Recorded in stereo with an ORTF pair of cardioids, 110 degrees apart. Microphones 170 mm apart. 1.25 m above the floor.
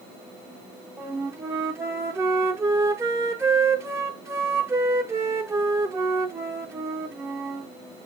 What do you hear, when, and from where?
1.0 s a flute: 15° right, 0.5 m